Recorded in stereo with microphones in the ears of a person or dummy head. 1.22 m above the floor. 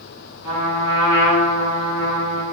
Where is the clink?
No clink in this recording.